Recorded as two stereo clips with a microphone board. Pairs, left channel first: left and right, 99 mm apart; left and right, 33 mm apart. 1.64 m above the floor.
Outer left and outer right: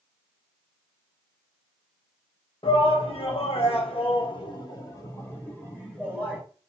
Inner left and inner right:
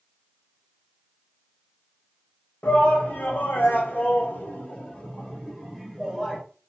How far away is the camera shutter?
No camera shutter in this recording.